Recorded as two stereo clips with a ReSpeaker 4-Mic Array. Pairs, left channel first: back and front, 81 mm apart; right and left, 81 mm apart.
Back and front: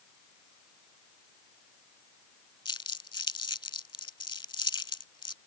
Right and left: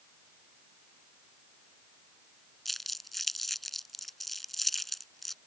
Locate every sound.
2.6 s crumpling: straight behind